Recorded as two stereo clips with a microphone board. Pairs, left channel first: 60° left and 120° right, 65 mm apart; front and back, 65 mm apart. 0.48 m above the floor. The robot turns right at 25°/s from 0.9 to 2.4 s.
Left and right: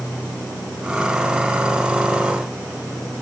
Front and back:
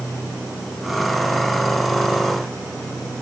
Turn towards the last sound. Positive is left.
No sound to turn to.